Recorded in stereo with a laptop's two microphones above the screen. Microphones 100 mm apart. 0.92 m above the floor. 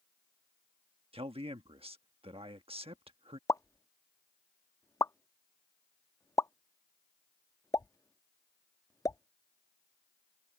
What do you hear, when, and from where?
1.1 s a man speaking: 70° right (ahead or behind)
3.5 s a pop: 35° left (ahead or behind)